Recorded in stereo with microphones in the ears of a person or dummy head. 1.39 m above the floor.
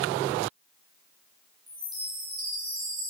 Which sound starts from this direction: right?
A chime, at 1.7 s.